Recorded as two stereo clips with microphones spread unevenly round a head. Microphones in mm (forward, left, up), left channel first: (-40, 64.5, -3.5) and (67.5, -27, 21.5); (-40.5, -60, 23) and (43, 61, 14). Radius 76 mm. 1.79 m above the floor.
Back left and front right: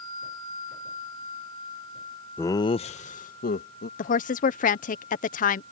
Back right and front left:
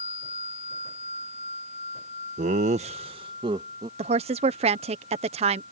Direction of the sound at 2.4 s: 55° left.